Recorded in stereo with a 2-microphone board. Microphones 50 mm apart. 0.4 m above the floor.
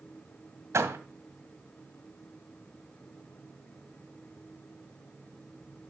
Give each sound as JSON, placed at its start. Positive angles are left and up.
{"t": 0.7, "sound": "a door slam", "side_deg": -65, "distance_m": 2.0}